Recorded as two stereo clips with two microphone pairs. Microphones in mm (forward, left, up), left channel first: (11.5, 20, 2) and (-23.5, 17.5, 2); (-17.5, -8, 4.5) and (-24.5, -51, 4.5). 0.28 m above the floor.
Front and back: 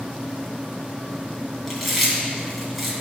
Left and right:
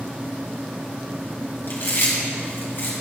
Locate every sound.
1.7 s chewing: 95° left, 2.5 m